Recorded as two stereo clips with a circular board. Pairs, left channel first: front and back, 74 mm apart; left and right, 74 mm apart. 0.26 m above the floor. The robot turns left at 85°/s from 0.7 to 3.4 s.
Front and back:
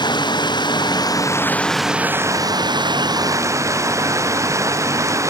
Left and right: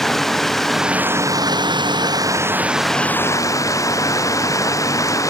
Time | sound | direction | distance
0.0 | running water | 5° left | ?